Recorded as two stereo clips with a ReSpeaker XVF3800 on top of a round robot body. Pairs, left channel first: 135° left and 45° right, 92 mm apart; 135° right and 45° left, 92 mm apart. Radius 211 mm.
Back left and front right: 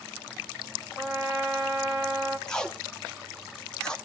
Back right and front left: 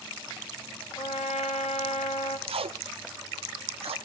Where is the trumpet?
115° right, 0.9 m.